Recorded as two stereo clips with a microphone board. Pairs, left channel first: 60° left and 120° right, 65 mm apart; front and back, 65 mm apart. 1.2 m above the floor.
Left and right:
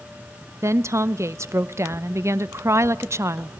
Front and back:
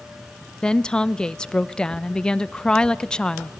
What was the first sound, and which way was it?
A woman speaking, 80° right.